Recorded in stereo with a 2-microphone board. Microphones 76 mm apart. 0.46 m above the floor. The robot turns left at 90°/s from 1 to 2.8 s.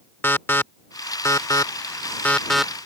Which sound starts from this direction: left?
An alarm, at 0.2 s.